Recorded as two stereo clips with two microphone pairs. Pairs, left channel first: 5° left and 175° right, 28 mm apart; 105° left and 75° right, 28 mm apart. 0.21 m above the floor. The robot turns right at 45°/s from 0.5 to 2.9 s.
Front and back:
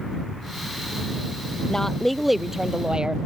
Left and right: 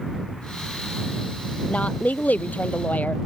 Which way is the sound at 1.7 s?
70° left.